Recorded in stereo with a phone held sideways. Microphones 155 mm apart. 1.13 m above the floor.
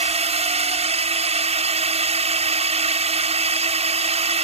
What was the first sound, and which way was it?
A drone, 40° right (ahead or behind).